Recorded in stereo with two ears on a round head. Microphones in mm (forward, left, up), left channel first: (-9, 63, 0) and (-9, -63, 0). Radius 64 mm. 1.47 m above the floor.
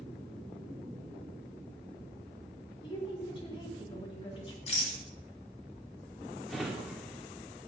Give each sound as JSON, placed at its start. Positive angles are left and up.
{"t": 2.8, "sound": "a woman speaking", "side_deg": 35, "distance_m": 1.7}
{"t": 4.7, "sound": "a rattle", "side_deg": 45, "distance_m": 1.7}
{"t": 6.5, "sound": "a drawer", "side_deg": 0, "distance_m": 1.5}